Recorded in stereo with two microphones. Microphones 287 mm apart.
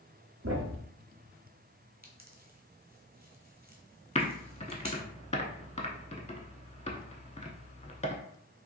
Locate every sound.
0.4 s a thud: 55° right (ahead or behind), 0.9 m
2.0 s a pop: 35° right (ahead or behind), 0.8 m
4.2 s typing on a keyboard: 25° left (ahead or behind), 0.5 m